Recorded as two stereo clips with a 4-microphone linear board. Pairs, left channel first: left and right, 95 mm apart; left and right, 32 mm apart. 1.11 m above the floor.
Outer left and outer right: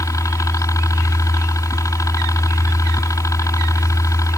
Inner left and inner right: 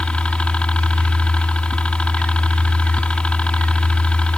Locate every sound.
0.0 s a helicopter: 35° left (ahead or behind)